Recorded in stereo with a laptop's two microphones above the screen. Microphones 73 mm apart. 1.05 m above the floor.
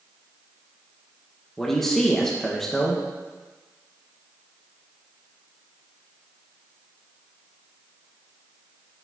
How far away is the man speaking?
About 0.6 m.